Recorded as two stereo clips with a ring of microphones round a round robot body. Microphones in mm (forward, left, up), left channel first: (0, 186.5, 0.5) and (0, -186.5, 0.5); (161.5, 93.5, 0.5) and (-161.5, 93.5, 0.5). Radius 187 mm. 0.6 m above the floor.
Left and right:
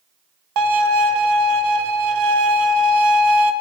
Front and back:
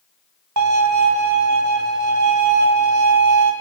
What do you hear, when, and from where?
0.6 s a violin: 130° right, 1.7 m